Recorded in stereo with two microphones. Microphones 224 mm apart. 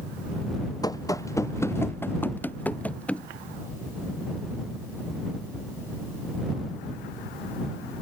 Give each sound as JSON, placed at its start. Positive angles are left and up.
{"t": 0.8, "sound": "running footsteps", "side_deg": 15}